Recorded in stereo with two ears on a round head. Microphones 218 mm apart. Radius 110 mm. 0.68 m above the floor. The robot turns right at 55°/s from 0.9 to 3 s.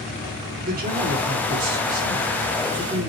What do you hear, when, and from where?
0.6 s a man speaking: 135° right, 2.5 m; by 3.1 s 20° right, 2.5 m